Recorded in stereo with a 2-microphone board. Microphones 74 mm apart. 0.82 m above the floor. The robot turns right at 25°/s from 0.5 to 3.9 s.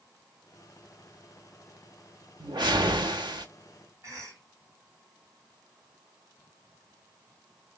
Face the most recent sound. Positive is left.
turn(degrees=-45)  # may be behind; listen again after turning